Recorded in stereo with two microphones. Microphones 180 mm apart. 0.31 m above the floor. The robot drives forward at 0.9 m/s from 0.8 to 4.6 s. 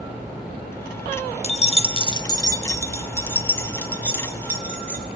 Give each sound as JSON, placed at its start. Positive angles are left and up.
{"t": 1.4, "sound": "keys jangling", "side_deg": 35, "distance_m": 0.6}